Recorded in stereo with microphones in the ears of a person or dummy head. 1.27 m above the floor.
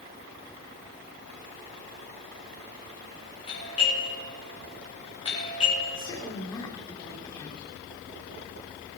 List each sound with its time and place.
3.5 s a doorbell: 35° left (ahead or behind), 5.5 m
6.0 s a woman speaking: 25° left (ahead or behind), 3 m